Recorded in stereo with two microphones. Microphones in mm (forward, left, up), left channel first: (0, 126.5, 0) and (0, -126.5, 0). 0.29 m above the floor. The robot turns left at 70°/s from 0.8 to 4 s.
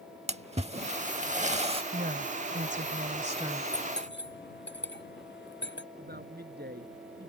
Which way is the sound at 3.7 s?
25° left (ahead or behind).